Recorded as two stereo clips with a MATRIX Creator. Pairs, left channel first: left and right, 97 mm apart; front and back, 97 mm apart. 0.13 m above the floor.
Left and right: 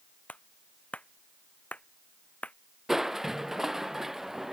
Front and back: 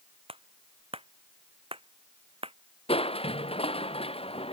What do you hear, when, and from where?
0.3 s a clap: 165° left
2.9 s crushing: 5° right